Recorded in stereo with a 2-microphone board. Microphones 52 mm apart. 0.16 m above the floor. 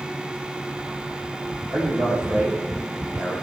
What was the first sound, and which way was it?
A man speaking, 45° right (ahead or behind).